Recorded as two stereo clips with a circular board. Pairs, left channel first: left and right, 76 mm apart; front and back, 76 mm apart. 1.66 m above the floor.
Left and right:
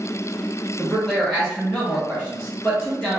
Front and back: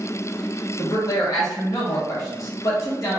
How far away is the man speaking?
About 0.7 m.